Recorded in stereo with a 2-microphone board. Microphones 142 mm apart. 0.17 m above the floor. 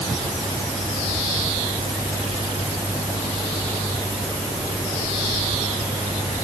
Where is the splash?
No splash in this recording.